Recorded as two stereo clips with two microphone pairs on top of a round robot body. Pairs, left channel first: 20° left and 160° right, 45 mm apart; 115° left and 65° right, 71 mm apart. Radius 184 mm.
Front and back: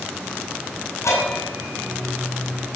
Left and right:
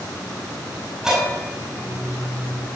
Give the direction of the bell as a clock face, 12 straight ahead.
11 o'clock.